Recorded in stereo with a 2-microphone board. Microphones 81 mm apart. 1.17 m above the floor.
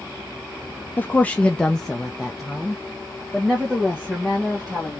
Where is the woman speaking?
20° left (ahead or behind), 0.6 m; by 5.0 s 10° right (ahead or behind), 2.5 m.